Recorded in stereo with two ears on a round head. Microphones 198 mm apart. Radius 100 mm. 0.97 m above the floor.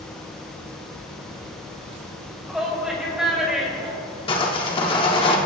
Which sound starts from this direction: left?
Sawing, at 4.3 s.